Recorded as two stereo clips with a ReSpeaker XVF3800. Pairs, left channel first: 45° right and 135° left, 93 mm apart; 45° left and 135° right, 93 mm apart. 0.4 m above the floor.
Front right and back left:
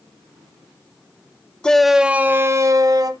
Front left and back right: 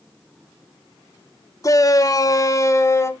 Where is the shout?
30° left, 1.0 m; by 3.1 s 100° left, 1.5 m.